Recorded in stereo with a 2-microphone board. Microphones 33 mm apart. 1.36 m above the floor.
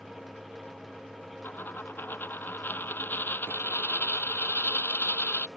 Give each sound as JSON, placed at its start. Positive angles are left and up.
{"t": 1.4, "sound": "a dropped coin", "side_deg": 80}